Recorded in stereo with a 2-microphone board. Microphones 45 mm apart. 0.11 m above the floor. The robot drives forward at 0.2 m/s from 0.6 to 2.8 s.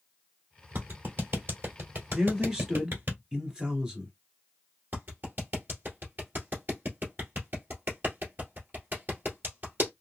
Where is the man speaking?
20° right (ahead or behind), 1.3 m.